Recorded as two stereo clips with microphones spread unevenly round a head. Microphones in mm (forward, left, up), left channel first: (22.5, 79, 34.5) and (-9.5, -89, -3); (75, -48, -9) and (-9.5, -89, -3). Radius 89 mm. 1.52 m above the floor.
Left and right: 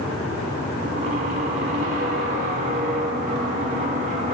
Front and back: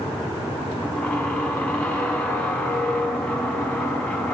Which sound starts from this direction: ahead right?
A squeak, at 0.8 s.